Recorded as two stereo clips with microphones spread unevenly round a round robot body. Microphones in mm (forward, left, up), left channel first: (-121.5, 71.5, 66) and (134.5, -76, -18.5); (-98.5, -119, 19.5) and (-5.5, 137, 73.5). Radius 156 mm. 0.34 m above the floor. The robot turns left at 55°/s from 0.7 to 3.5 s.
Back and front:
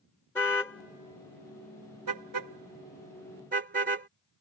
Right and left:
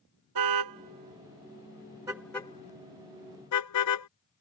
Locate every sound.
0.3 s a car horn: 65° left; by 4.1 s 90° right